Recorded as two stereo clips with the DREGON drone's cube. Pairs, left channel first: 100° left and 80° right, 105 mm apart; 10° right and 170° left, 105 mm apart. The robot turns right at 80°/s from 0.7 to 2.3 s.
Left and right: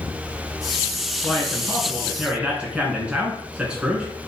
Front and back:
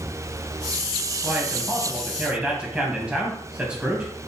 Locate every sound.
1.2 s a man speaking: 145° left, 1.3 m; by 4.1 s 130° right, 1.3 m